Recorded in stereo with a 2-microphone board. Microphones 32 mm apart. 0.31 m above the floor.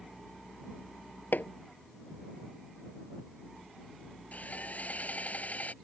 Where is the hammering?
80° left.